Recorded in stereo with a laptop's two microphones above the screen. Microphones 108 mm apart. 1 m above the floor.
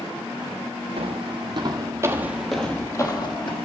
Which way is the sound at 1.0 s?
60° right (ahead or behind).